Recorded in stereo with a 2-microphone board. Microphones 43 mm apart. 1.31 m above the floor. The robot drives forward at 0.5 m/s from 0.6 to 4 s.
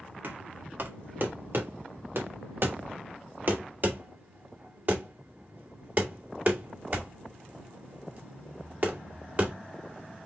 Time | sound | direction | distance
0.2 | knocking | 50° right (ahead or behind) | 1.3 m